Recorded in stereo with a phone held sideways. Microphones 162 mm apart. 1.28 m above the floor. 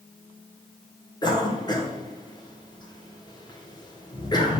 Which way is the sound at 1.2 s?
25° left (ahead or behind).